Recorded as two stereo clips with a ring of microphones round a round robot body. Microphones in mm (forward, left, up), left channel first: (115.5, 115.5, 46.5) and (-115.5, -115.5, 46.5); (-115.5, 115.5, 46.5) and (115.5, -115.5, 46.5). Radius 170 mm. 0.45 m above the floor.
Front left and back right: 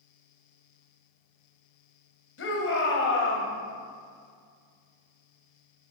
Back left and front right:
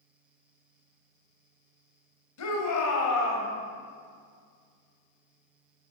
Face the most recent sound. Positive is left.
turn(degrees=95)